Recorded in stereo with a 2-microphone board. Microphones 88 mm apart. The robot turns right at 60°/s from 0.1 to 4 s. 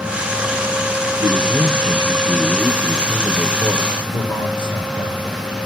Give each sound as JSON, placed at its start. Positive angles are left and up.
{"t": 1.2, "sound": "a man speaking", "azimuth_deg": -95, "distance_m": 4.0}
{"t": 4.1, "sound": "a man speaking", "side_deg": 60, "distance_m": 5.5}